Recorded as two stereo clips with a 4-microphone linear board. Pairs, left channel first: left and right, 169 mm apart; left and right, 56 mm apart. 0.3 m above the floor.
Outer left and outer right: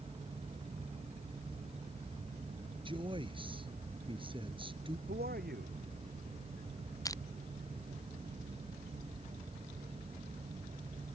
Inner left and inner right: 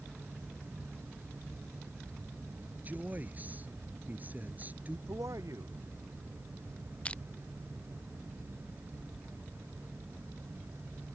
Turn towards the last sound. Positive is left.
turn(degrees=20)  # may be behind; listen again after turning